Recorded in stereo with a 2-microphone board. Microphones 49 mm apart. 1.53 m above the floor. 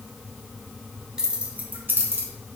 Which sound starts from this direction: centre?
Keys jangling, at 1.2 s.